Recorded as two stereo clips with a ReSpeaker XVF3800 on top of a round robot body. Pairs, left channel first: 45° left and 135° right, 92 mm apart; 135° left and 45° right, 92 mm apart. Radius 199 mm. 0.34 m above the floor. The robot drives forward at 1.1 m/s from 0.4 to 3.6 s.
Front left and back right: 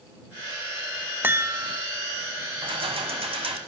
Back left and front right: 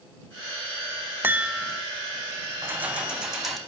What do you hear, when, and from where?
1.2 s a chime: 90° right, 0.9 m; by 1.9 s 150° right, 1.1 m
2.6 s keys jangling: 110° right, 1.9 m; by 3.6 s 135° right, 2.5 m